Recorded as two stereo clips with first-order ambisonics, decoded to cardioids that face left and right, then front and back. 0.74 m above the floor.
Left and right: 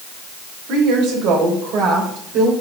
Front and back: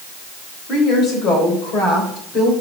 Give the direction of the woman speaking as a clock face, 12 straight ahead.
2 o'clock.